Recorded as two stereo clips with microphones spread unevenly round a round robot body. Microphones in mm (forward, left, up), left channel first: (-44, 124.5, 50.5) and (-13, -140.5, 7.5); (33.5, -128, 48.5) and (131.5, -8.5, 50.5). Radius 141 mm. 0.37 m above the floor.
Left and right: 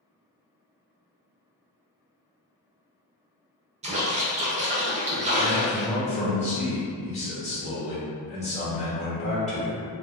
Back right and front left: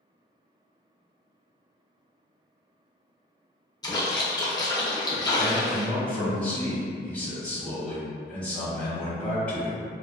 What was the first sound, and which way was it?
A splash, 85° right.